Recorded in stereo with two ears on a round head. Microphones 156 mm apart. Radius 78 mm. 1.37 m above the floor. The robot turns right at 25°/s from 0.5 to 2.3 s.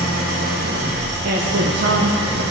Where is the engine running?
120° right, 1.0 m; by 2.5 s 75° right, 1.0 m.